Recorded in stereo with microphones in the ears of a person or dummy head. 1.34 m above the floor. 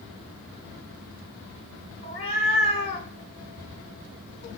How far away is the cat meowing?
About 1.8 m.